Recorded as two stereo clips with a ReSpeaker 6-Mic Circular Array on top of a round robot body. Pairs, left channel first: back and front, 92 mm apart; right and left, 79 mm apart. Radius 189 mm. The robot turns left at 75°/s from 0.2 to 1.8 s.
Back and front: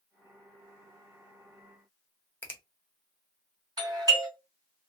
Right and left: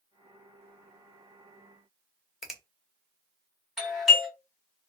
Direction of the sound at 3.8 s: Straight ahead.